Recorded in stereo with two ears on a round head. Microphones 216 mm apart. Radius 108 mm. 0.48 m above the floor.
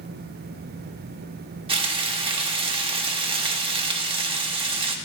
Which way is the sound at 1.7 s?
25° right (ahead or behind).